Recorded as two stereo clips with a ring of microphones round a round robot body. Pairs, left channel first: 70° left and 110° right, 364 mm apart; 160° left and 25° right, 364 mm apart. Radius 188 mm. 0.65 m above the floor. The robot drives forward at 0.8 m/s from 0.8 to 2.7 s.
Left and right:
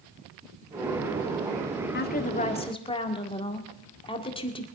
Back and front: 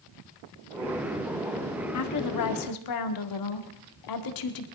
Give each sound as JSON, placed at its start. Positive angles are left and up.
{"t": 1.9, "sound": "a woman speaking", "azimuth_deg": 125, "distance_m": 1.5}